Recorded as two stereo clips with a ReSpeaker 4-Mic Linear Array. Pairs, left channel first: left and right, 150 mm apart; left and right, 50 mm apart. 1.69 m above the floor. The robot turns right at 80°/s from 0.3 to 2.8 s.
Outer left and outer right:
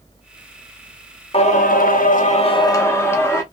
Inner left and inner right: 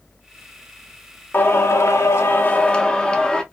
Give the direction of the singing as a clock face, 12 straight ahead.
11 o'clock.